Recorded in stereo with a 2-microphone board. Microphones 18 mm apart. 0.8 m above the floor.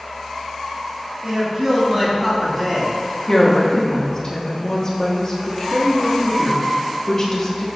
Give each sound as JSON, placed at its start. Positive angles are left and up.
{"t": 1.2, "sound": "a man speaking", "side_deg": -30, "distance_m": 2.5}
{"t": 3.3, "sound": "a woman speaking", "side_deg": 30, "distance_m": 1.4}